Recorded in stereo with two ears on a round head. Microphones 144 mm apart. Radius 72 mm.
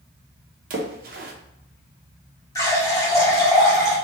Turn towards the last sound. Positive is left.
turn(degrees=20)  # may be behind; listen again after turning